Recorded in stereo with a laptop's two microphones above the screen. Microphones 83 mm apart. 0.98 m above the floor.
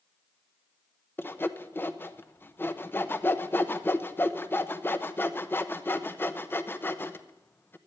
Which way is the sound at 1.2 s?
25° left (ahead or behind).